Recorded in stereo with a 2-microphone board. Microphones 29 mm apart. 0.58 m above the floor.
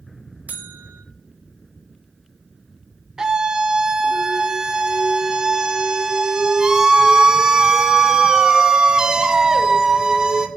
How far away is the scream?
About 0.6 m.